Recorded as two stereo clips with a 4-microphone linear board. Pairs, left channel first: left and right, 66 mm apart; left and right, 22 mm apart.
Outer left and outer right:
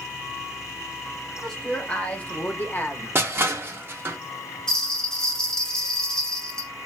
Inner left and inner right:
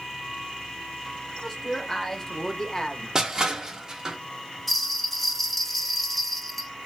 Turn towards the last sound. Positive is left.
turn(degrees=10)  # may be behind; listen again after turning